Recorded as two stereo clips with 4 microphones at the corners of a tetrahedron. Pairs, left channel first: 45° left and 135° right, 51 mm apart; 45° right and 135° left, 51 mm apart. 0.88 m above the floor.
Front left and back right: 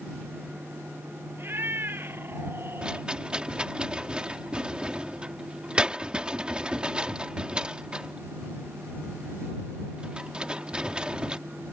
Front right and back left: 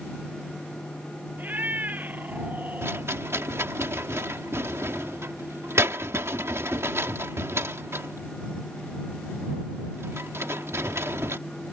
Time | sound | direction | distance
1.4 | a cat meowing | 175° right | ?
2.8 | a rattle | 155° left | ?